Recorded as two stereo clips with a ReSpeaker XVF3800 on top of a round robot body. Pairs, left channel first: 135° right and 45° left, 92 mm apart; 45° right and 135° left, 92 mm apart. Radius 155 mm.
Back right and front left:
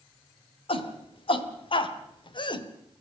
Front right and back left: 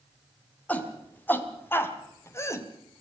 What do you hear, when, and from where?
0.7 s a shout: 120° right, 3.5 m; by 2.7 s 100° right, 2.5 m